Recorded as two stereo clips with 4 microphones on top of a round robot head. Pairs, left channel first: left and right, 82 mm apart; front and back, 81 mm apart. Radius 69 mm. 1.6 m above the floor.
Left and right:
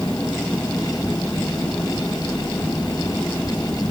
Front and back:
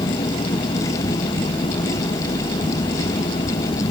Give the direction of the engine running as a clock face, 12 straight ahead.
12 o'clock.